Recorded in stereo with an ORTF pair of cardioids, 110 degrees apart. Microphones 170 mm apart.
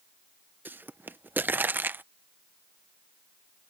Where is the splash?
I don't hear a splash.